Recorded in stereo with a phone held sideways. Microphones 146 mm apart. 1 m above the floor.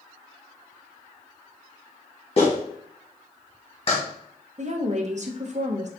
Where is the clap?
45° left (ahead or behind), 1.1 m.